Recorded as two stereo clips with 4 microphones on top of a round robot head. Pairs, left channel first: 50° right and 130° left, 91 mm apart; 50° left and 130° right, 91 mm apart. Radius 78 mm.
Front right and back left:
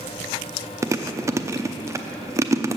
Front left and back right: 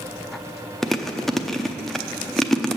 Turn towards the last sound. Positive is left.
turn(degrees=130)